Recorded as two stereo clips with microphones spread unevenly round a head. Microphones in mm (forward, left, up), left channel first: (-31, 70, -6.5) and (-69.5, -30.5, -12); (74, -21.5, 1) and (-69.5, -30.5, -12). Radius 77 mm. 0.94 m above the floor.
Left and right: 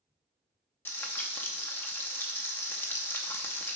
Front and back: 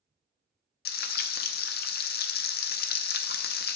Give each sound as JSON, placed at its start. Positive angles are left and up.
{"t": 0.8, "sound": "frying", "azimuth_deg": -5, "distance_m": 0.5}